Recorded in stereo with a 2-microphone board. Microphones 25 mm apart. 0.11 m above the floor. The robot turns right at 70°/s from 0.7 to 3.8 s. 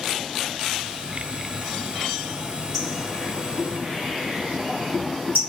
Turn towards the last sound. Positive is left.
turn(degrees=-65)  # may be behind; listen again after turning